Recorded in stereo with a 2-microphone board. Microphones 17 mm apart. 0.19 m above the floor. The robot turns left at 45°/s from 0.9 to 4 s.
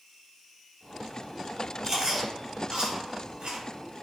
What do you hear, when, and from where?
1.8 s chewing: 30° right (ahead or behind), 1.2 m; by 4.0 s 45° right (ahead or behind), 1.2 m